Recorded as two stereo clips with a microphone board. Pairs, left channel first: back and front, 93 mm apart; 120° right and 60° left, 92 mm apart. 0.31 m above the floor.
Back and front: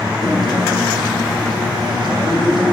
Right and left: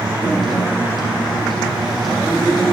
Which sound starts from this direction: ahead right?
A guitar, at 0.2 s.